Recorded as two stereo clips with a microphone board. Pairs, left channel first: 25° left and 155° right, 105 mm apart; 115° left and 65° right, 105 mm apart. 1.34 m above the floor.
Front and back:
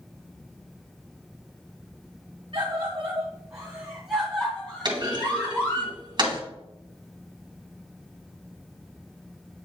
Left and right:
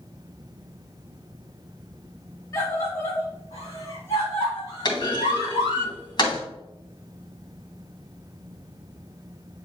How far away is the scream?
About 2 m.